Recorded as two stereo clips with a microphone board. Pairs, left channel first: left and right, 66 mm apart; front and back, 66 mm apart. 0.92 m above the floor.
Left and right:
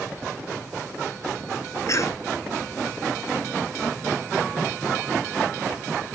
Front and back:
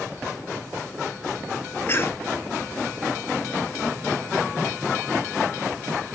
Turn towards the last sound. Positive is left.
turn(degrees=55)